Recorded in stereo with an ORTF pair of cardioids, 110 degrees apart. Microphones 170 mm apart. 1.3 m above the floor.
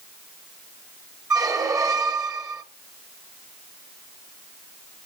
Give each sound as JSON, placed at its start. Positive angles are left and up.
{"t": 1.3, "sound": "a squeak", "azimuth_deg": -20, "distance_m": 1.6}